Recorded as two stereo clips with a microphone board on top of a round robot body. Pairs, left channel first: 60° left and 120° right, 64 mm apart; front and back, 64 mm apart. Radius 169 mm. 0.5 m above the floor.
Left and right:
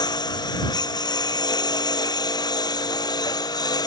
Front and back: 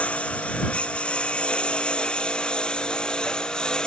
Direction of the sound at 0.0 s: 70° left.